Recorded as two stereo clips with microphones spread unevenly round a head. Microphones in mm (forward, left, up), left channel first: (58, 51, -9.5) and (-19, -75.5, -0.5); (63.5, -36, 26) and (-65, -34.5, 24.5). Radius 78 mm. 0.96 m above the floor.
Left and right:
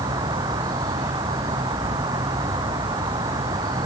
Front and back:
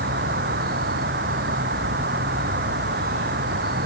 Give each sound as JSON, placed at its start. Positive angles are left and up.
{"t": 0.0, "sound": "an insect", "azimuth_deg": 170}